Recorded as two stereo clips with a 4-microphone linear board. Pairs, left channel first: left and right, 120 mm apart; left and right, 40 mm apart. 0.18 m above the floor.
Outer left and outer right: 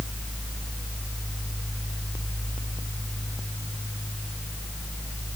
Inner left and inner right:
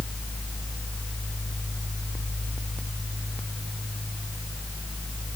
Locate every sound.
Only background noise.